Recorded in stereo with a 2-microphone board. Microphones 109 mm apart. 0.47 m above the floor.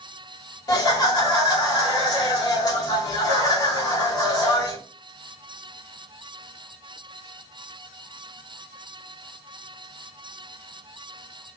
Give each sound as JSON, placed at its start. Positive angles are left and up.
{"t": 0.7, "sound": "laughter", "side_deg": 35, "distance_m": 1.7}